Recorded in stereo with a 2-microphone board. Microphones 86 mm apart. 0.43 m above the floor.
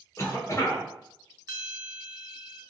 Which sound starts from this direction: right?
A bell, at 1.5 s.